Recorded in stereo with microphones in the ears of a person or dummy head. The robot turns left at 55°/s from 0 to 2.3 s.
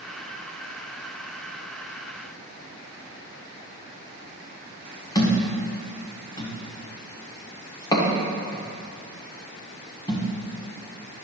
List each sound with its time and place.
5.2 s a thud: 20° left (ahead or behind), 1.4 m